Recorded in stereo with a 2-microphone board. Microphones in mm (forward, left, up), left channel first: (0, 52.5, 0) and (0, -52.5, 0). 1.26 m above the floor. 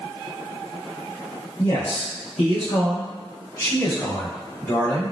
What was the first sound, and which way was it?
A man speaking, 55° left (ahead or behind).